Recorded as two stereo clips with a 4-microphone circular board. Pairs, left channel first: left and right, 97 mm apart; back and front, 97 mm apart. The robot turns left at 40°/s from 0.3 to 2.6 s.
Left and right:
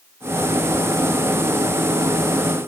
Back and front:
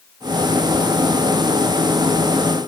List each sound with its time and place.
Only background noise.